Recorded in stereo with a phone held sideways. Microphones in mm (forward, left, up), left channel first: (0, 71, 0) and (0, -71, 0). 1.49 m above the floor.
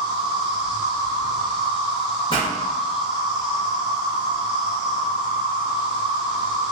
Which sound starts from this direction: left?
A pop, at 2.3 s.